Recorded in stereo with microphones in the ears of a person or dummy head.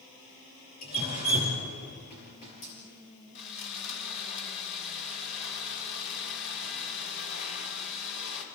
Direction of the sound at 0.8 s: 45° left (ahead or behind).